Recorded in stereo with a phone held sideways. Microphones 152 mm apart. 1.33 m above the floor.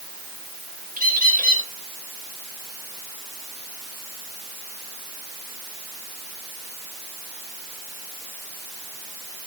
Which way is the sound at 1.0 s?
65° right (ahead or behind).